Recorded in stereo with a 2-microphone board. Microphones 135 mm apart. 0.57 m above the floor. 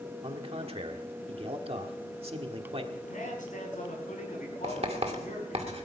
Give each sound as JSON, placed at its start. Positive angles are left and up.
{"t": 0.2, "sound": "a man speaking", "side_deg": -45, "distance_m": 1.4}
{"t": 2.9, "sound": "a man speaking", "side_deg": 75, "distance_m": 5.5}
{"t": 4.6, "sound": "writing", "side_deg": -50, "distance_m": 1.9}